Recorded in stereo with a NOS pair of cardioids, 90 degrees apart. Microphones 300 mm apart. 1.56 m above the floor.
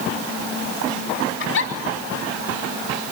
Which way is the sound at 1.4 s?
45° left.